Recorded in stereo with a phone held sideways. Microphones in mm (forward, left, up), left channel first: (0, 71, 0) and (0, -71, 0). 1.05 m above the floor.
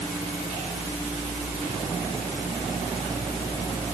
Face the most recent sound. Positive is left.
No sound to turn to.